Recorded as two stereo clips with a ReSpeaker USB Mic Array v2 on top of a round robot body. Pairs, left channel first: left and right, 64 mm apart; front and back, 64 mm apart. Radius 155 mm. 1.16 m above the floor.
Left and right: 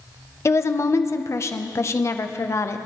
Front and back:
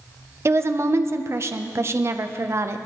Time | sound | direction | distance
0.5 | a woman speaking | 135° left | 0.8 m